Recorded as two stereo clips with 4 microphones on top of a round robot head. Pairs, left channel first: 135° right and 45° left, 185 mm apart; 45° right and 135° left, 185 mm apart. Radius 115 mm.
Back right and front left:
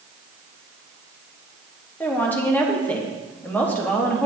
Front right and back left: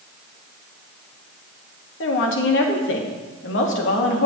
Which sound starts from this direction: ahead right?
A woman speaking, at 2.0 s.